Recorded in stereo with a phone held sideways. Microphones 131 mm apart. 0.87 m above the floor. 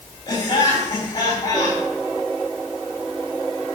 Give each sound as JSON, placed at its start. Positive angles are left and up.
{"t": 0.3, "sound": "laughter", "side_deg": 30, "distance_m": 4.5}